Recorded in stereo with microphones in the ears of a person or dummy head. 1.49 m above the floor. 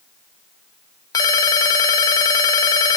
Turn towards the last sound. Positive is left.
turn(degrees=20)  # may be behind; listen again after turning